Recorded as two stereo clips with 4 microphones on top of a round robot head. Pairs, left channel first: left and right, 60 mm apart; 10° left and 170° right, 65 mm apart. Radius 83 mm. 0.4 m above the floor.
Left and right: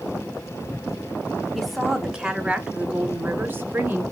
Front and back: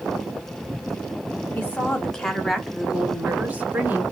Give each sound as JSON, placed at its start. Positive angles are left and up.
{"t": 1.6, "sound": "a woman speaking", "azimuth_deg": -5, "distance_m": 1.3}